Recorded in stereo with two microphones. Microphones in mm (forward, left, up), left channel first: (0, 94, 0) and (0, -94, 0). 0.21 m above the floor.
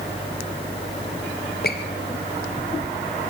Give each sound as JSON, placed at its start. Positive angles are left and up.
{"t": 1.6, "sound": "a squeak", "side_deg": 60, "distance_m": 3.5}